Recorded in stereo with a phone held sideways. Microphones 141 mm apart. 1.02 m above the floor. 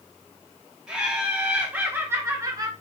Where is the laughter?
10° right (ahead or behind), 2 m; by 2.7 s 30° right (ahead or behind), 1.0 m.